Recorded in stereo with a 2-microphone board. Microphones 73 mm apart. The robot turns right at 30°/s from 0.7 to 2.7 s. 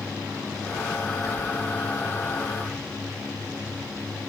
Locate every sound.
1.2 s whispering: 5° right (ahead or behind), 1.6 m